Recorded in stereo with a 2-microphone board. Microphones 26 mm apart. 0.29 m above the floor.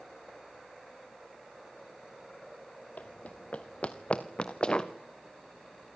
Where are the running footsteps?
65° left (ahead or behind), 1.6 m; by 4.9 s 30° left (ahead or behind), 2.0 m.